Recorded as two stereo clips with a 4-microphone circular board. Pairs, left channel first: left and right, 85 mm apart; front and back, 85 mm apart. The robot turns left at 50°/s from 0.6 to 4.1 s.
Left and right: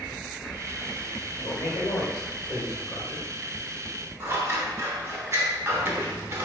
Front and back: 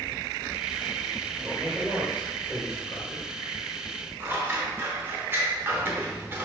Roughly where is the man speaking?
Behind left.